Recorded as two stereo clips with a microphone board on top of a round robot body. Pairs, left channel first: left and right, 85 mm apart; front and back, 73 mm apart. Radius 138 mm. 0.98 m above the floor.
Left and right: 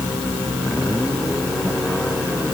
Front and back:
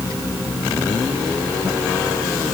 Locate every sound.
Only background noise.